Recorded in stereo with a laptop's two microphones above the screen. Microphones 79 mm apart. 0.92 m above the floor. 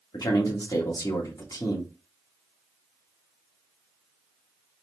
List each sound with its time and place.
0.1 s a man speaking: 50° left (ahead or behind), 1.6 m